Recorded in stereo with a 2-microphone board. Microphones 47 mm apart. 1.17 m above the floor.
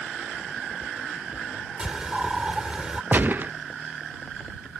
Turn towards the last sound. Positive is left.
turn(degrees=-45)  # may be behind; listen again after turning